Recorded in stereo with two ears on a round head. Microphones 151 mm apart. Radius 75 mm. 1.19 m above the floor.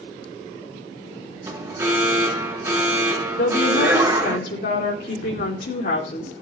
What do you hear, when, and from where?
1.5 s an alarm: 15° right (ahead or behind), 4 m
3.4 s a woman speaking: 55° left (ahead or behind), 3.5 m